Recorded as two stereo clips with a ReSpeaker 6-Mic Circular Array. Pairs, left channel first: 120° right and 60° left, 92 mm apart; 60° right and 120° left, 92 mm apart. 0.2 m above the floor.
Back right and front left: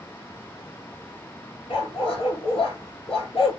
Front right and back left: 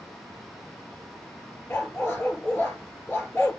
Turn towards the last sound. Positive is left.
turn(degrees=-125)